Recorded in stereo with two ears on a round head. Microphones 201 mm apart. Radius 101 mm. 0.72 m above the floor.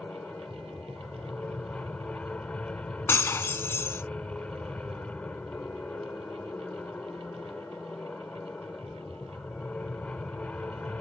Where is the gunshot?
I don't hear a gunshot.